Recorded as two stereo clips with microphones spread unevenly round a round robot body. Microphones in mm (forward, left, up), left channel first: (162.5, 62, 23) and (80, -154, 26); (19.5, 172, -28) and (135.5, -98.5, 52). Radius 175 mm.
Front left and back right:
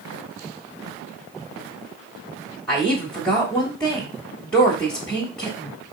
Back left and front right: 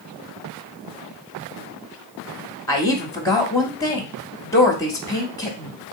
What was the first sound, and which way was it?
A woman speaking, 155° left.